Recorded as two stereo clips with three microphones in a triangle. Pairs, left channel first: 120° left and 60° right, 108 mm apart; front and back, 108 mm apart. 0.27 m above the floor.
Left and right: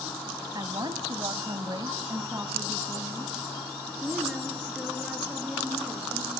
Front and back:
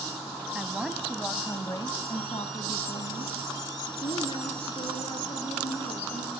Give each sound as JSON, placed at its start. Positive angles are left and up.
{"t": 0.6, "sound": "a woman speaking", "azimuth_deg": -100, "distance_m": 1.6}